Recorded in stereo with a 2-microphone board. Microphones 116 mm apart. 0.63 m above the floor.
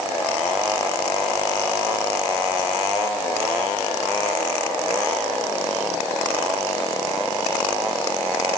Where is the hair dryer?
I don't hear a hair dryer.